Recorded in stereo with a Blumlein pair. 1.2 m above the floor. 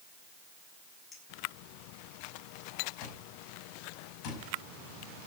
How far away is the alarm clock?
About 5.5 m.